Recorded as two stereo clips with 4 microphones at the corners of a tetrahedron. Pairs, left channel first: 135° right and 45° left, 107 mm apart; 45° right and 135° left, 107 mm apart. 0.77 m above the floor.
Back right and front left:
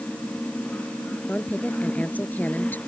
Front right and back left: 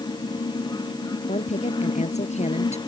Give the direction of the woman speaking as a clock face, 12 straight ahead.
2 o'clock.